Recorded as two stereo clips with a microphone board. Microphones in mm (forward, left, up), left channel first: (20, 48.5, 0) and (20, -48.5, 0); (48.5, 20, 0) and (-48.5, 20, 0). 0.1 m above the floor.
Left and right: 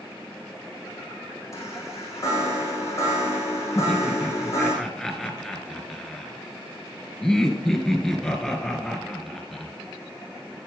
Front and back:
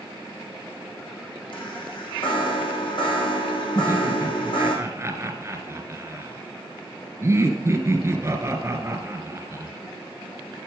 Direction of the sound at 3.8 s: 170° left.